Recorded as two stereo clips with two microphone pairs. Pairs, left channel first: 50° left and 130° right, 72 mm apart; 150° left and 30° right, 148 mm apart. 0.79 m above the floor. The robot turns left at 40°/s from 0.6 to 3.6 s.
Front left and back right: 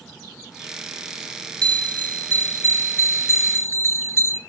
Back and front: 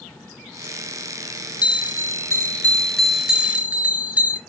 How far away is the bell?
About 0.6 m.